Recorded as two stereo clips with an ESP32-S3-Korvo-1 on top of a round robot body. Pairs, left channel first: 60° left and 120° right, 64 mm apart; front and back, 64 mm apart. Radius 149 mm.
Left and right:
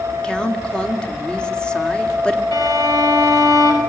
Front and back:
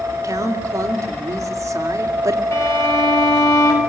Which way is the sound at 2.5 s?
45° left.